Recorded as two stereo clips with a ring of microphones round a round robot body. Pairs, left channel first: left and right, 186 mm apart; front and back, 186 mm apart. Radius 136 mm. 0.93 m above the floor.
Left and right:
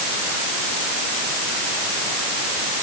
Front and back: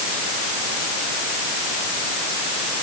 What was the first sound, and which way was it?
Only background noise.